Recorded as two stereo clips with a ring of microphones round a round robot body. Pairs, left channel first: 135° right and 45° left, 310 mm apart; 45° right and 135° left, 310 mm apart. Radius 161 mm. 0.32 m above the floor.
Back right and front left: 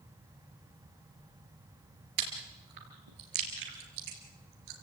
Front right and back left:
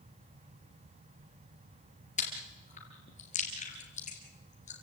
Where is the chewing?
25° left, 4 m.